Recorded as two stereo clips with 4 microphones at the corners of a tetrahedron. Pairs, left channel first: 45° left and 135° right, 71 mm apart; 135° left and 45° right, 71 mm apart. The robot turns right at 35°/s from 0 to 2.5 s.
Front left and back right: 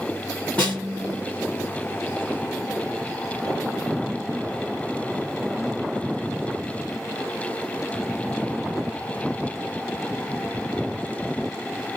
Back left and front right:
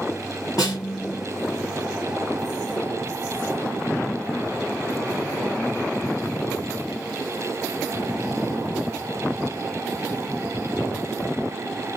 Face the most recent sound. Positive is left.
turn(degrees=180)